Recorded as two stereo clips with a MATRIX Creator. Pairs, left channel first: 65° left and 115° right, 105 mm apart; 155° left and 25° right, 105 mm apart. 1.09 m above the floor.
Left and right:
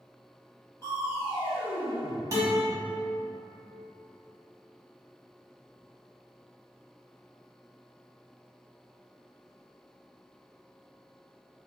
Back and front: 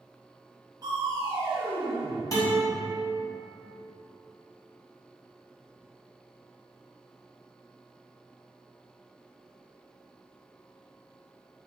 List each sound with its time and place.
0.8 s crushing: 15° left, 1.3 m
2.3 s a guitar: 160° right, 1.2 m